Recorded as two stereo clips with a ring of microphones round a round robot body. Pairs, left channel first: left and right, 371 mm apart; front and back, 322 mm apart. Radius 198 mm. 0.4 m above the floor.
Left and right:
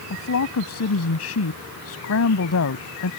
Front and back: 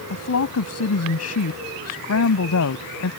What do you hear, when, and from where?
0.1 s a woman speaking: 40° left